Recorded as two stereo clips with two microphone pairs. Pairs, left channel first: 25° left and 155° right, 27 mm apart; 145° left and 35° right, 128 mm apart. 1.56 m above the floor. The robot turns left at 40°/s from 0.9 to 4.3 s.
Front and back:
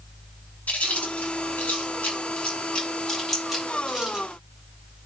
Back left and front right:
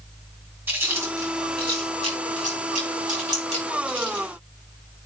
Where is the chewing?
35° left, 6 m; by 4.2 s 95° right, 6 m.